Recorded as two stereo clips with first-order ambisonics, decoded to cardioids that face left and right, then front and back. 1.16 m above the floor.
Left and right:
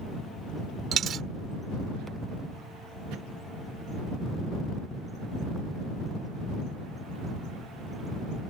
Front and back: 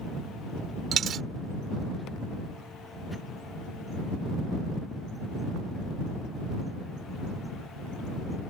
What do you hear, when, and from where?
0.9 s a dropped coin: 135° right